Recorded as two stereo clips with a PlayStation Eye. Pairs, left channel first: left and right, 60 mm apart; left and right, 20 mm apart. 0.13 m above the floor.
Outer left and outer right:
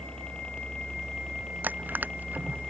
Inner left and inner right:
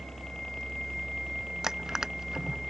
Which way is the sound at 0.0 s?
15° left (ahead or behind).